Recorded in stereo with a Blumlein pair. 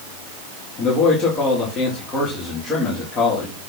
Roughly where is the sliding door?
I don't hear a sliding door.